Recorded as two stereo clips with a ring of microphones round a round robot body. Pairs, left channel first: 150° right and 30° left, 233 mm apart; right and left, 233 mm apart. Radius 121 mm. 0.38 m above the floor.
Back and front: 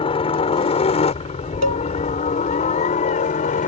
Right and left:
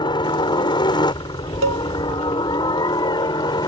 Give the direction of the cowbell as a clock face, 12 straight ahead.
10 o'clock.